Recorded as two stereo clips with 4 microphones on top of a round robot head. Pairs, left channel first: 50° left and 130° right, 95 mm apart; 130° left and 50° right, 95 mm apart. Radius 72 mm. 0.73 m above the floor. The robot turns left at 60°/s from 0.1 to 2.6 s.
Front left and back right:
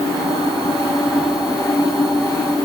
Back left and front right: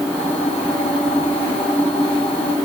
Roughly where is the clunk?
No clunk in this recording.